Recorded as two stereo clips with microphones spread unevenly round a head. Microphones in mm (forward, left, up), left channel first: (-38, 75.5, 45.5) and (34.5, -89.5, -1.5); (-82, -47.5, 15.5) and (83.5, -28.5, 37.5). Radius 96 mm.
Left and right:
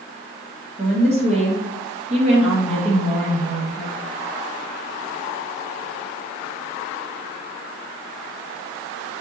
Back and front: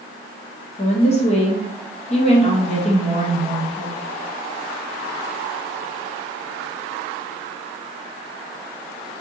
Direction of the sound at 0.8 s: 125° right.